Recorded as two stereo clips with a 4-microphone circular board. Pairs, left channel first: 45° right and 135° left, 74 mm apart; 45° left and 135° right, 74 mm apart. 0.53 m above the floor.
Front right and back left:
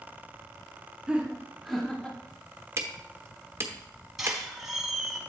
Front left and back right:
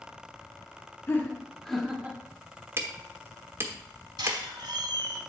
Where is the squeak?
140° right, 1.2 m.